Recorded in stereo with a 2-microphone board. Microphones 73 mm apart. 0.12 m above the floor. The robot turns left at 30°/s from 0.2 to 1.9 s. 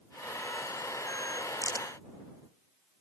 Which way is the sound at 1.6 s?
50° left (ahead or behind).